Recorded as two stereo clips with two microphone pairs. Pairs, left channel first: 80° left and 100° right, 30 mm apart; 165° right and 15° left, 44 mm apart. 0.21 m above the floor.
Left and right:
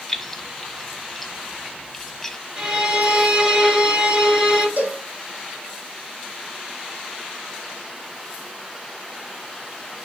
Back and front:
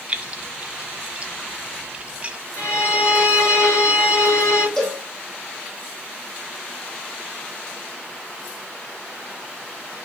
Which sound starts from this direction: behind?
A violin, at 2.6 s.